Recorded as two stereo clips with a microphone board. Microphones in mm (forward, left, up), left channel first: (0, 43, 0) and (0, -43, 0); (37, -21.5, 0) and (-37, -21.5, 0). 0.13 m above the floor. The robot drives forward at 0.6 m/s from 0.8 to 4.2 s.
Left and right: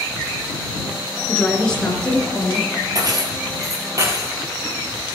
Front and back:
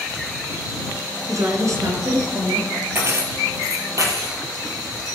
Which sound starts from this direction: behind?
A woman speaking, at 1.3 s.